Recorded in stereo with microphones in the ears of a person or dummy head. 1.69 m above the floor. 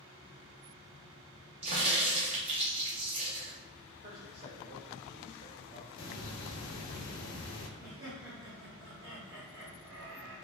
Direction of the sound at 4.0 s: 45° right (ahead or behind).